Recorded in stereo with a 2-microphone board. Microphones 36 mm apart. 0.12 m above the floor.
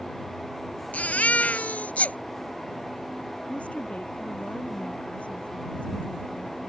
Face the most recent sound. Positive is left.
turn(degrees=40)  # may be behind; listen again after turning